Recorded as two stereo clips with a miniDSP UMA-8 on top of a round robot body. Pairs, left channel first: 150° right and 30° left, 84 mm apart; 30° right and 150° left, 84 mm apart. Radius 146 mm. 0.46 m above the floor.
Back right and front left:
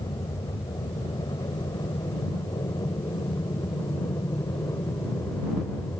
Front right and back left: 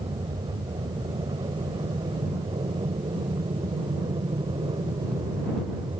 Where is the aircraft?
175° left; by 6.0 s 160° left.